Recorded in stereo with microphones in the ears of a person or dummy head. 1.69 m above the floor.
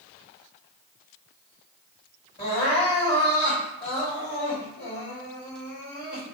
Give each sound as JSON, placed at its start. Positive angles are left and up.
{"t": 2.4, "sound": "crying", "side_deg": 30, "distance_m": 2.0}